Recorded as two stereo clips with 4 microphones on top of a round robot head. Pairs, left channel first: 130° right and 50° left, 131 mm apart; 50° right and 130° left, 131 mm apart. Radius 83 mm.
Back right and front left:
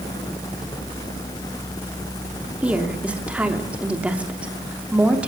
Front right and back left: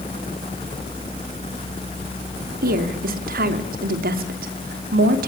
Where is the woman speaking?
130° left, 2.5 m.